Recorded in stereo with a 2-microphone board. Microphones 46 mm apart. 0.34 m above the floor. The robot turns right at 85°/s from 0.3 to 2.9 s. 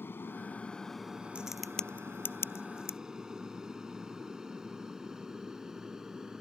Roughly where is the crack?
Right.